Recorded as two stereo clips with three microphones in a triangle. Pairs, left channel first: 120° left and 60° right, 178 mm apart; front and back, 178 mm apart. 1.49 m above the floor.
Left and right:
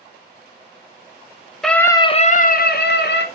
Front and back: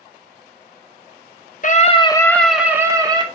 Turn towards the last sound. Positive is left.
turn(degrees=115)